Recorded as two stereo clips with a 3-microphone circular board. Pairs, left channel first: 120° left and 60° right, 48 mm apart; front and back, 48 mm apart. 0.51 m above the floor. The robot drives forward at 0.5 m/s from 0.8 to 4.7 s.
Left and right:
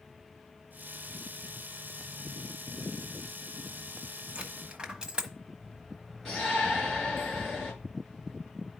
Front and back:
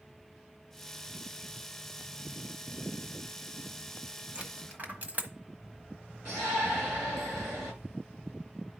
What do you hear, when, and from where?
4.3 s a dropped coin: 125° right, 1.1 m; by 5.3 s 130° right, 1.2 m
6.2 s a shout: 155° right, 7.5 m